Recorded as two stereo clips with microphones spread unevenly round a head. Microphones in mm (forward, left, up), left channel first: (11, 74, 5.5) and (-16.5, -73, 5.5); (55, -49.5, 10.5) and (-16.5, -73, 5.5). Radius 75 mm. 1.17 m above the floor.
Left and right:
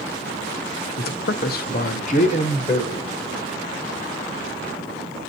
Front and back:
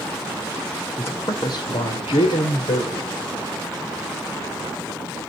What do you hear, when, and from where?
1.0 s a man speaking: 90° left, 0.7 m; by 3.1 s 20° left, 1.2 m